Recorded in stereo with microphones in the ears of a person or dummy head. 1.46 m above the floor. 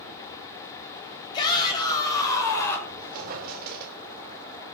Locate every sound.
1.3 s a shout: 25° left (ahead or behind), 7 m; by 2.8 s 15° left (ahead or behind), 5.5 m
2.9 s a squeak: 50° right (ahead or behind), 3.5 m